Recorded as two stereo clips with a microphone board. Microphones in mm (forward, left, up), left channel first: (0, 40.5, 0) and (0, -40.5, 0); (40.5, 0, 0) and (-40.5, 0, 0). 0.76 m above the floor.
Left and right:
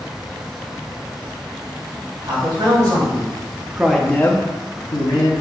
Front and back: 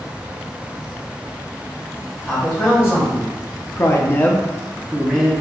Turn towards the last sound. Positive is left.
turn(degrees=95)